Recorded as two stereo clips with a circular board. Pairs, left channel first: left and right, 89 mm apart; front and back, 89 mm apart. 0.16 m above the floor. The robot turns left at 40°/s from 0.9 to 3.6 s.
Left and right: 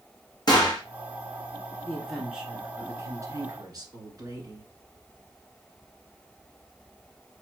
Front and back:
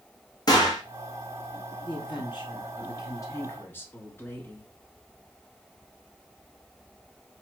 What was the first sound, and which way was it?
A gunshot, 45° left.